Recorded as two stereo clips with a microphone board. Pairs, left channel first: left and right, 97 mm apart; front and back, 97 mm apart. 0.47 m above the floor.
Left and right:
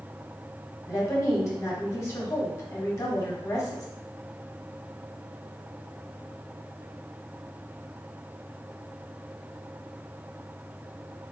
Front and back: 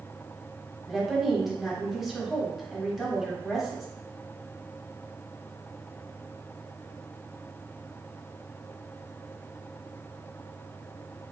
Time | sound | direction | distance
0.9 | a woman speaking | 95° left | 1.1 m